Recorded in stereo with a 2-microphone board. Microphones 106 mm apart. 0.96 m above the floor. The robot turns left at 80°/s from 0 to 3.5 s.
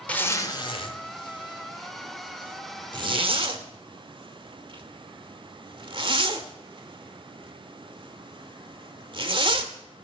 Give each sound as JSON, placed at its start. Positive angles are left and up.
{"t": 0.1, "sound": "a zipper", "side_deg": 10, "distance_m": 0.9}